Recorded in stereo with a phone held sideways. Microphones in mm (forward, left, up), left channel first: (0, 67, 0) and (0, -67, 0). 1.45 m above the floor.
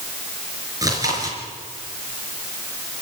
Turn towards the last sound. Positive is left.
turn(degrees=-25)  # may be behind; listen again after turning